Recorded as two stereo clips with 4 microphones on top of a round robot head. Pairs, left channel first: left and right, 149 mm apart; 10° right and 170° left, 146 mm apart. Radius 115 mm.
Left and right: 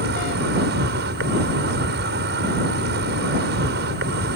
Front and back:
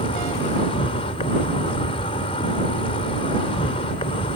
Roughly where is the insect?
Right.